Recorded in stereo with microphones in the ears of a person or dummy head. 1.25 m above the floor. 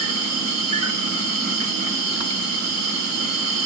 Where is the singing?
I don't hear singing.